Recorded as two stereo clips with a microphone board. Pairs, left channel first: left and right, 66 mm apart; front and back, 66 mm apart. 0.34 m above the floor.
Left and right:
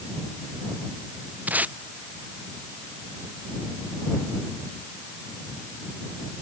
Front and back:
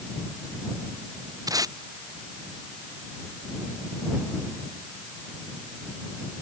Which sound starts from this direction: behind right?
Tape being pulled, at 1.5 s.